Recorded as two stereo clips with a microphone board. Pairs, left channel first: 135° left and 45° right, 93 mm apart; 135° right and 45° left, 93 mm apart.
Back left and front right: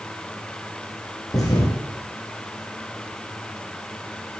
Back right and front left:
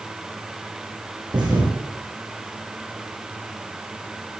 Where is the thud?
85° left, 5 m.